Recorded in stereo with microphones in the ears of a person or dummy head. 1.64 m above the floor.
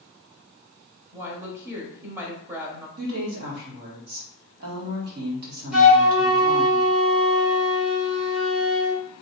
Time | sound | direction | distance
1.1 | a woman speaking | 15° right (ahead or behind) | 0.7 m
3.0 | a woman speaking | 55° right (ahead or behind) | 1.8 m
5.7 | a flute | 5° right (ahead or behind) | 1.1 m